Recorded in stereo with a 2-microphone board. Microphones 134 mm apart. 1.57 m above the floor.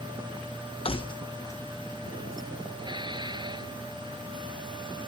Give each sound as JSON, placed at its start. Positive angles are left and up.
{"t": 0.8, "sound": "keys jangling", "side_deg": 45}
{"t": 2.8, "sound": "dishes clattering", "side_deg": -35}